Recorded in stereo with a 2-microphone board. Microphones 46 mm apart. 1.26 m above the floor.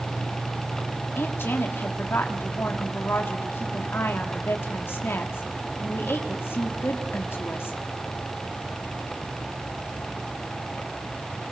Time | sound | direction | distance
1.1 | a woman speaking | 55° left (ahead or behind) | 3.5 m